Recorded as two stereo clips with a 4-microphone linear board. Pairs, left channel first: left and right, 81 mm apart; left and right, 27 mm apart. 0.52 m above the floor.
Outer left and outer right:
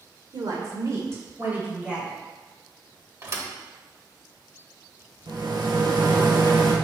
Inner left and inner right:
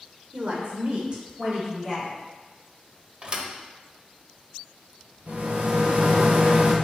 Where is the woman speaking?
55° right (ahead or behind), 1.8 m; by 2.2 s 15° right (ahead or behind), 3.5 m.